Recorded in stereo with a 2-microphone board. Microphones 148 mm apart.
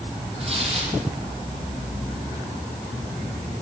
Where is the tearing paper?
40° right (ahead or behind), 6.5 m.